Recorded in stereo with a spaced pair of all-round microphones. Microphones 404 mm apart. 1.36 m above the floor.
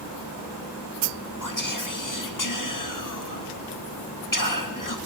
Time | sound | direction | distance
1.4 | whispering | 50° left (ahead or behind) | 1.8 m